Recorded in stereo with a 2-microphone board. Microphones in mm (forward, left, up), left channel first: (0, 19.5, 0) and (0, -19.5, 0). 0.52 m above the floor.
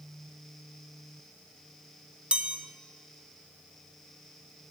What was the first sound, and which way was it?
A chime, 30° right (ahead or behind).